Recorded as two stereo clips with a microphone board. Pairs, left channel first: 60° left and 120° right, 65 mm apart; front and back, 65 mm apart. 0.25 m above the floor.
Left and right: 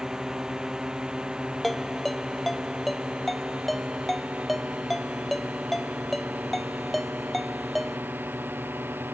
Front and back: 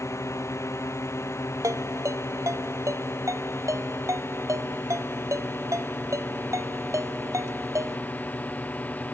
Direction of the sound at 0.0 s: 40° right.